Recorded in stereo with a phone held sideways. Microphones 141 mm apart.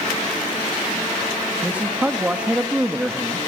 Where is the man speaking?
10° right (ahead or behind), 1.5 m.